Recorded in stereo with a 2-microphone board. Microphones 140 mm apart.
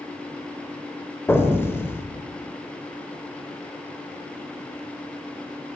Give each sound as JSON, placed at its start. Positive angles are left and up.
{"t": 1.3, "sound": "an explosion", "side_deg": 20, "distance_m": 0.6}